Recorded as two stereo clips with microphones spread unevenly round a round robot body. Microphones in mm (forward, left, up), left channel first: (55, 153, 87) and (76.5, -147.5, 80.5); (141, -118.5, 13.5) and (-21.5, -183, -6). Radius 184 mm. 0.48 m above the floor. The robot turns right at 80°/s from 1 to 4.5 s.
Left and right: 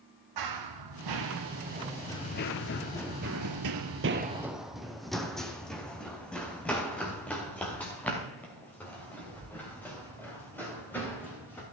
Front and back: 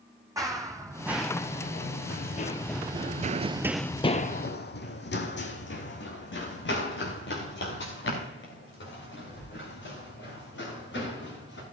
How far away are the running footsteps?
About 1.9 m.